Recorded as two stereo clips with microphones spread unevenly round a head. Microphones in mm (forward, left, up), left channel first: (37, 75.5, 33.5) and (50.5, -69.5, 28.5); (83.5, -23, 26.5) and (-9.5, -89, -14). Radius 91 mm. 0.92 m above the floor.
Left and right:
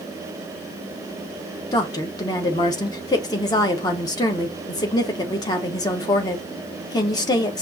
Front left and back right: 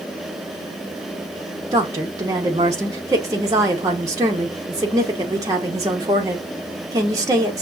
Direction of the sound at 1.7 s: 160° left.